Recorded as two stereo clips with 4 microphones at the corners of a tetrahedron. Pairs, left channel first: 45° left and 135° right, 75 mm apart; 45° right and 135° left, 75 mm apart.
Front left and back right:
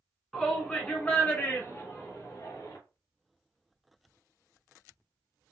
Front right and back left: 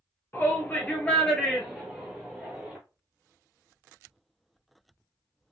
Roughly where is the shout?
Ahead right.